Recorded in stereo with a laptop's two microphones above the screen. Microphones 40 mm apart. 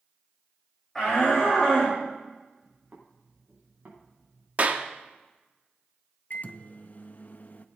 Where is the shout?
10° left (ahead or behind), 5 m; by 2.0 s centre (ahead or behind), 4.5 m.